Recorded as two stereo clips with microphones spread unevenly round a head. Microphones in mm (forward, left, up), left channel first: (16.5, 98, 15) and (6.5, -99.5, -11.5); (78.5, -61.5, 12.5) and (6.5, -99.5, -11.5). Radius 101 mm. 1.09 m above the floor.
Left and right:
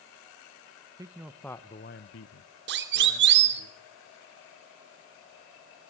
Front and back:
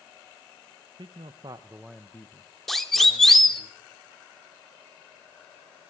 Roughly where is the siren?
Ahead right.